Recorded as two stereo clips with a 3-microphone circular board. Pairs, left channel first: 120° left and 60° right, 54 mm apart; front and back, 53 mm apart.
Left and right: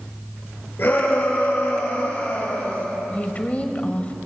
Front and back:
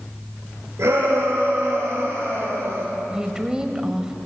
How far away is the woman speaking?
About 1.5 m.